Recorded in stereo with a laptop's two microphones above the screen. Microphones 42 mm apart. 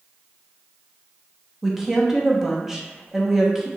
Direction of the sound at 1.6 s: 5° right (ahead or behind).